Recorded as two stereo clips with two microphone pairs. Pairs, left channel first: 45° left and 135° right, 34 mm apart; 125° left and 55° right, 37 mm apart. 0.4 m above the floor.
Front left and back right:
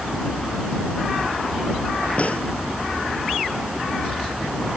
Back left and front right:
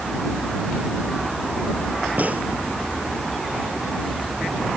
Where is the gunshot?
5° right.